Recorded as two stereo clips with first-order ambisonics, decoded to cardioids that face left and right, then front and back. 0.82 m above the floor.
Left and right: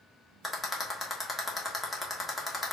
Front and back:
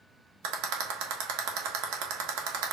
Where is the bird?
I don't hear a bird.